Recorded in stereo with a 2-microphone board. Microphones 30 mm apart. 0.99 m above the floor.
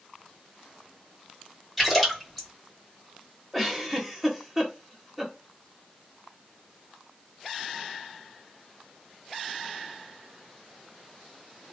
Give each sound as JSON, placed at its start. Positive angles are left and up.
{"t": 1.8, "sound": "a splash", "side_deg": 5, "distance_m": 4.0}
{"t": 3.5, "sound": "a giggle", "side_deg": 0, "distance_m": 1.4}